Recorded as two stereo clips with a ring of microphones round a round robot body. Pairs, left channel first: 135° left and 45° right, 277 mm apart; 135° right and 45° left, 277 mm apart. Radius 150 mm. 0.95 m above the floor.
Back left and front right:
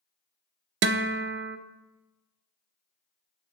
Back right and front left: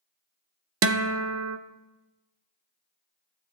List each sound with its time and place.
0.8 s a guitar: 5° left, 0.5 m